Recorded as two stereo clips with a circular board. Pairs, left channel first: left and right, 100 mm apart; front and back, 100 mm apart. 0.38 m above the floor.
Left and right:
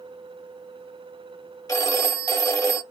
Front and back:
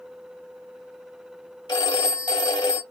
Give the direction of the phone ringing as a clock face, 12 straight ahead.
11 o'clock.